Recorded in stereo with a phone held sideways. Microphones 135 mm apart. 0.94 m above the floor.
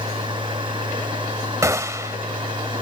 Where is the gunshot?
25° right (ahead or behind).